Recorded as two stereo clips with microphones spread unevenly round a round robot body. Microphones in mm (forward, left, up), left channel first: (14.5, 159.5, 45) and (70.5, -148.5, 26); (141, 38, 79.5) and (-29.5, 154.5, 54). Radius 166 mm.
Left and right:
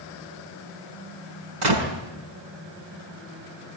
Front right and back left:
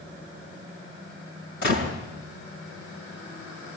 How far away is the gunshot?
About 4.5 m.